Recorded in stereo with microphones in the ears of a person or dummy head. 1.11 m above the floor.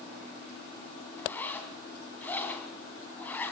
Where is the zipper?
10° left (ahead or behind), 2.5 m.